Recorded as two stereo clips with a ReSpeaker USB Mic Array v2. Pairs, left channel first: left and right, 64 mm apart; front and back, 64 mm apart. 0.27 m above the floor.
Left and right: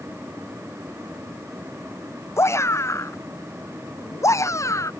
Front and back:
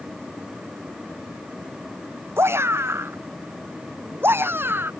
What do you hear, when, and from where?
2.4 s a shout: 130° left; by 4.9 s 125° left